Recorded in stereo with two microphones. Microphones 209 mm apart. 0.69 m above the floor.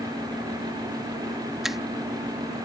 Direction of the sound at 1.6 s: Centre (ahead or behind).